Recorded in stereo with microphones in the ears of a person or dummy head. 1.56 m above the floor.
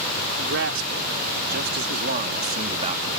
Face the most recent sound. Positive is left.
turn(degrees=-25)  # may be behind; listen again after turning